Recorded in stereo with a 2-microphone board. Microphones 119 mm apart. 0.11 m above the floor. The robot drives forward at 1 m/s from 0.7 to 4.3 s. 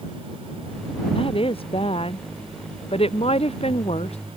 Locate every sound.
1.1 s a woman speaking: 50° left (ahead or behind); by 4.2 s 60° left (ahead or behind)